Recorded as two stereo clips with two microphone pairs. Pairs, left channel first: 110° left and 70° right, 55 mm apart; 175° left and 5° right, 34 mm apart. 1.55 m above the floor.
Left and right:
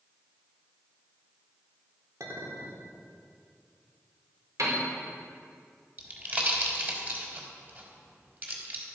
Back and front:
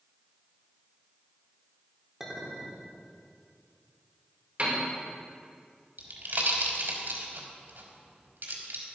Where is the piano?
55° right, 5 m.